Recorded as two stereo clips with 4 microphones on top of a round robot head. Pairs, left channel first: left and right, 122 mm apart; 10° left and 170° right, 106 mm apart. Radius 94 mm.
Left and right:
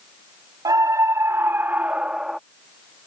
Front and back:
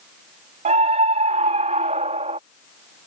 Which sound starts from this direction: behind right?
A scream, at 0.7 s.